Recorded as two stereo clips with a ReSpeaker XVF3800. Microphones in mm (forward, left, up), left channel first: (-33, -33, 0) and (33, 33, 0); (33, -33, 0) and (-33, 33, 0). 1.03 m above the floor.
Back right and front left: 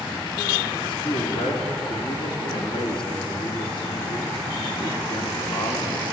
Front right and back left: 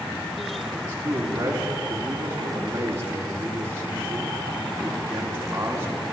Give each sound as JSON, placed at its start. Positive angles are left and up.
{"t": 0.8, "sound": "a man speaking", "azimuth_deg": -160, "distance_m": 3.5}